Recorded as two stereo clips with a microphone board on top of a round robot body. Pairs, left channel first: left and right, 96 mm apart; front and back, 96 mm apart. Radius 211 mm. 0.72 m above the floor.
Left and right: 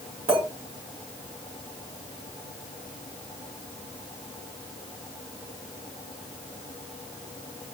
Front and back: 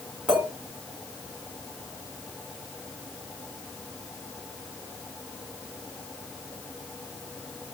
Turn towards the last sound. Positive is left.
turn(degrees=-90)